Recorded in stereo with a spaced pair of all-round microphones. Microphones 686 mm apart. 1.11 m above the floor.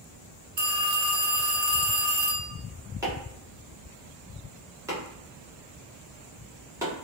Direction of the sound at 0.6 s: 40° right (ahead or behind).